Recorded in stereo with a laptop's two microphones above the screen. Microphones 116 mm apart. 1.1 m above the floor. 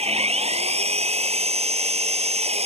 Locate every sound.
0.0 s an engine running: 60° right (ahead or behind)